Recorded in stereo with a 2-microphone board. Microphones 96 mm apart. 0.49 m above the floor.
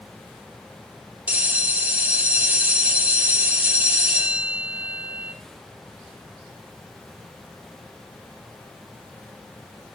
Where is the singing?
No singing in this recording.